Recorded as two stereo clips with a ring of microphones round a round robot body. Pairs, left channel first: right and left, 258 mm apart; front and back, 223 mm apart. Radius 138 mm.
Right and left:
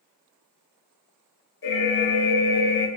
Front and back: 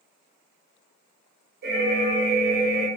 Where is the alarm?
130° right, 0.7 m.